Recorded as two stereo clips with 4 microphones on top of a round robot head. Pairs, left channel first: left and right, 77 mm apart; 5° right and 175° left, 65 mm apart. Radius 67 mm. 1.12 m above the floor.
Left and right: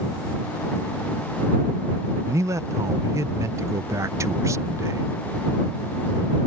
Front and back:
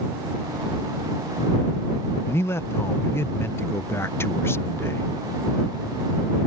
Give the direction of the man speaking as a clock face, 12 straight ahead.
2 o'clock.